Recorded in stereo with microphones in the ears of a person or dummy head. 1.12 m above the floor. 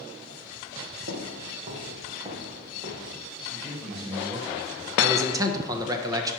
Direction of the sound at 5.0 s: 20° right (ahead or behind).